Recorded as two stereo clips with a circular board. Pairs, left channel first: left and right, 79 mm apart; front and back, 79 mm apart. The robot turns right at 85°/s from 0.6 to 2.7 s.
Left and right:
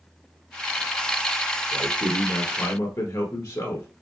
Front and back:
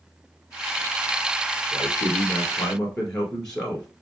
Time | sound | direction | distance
1.7 | a man speaking | 5° right | 1.7 m